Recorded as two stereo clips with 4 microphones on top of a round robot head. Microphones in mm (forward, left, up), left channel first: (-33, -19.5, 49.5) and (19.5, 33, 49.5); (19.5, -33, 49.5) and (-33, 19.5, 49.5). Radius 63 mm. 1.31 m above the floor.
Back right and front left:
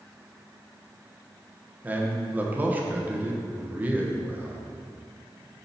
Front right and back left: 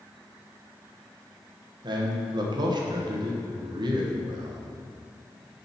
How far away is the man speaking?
About 1.4 m.